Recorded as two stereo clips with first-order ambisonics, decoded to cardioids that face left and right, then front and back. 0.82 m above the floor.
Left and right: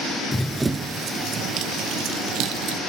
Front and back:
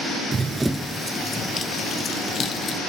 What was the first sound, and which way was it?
Running footsteps, 160° left.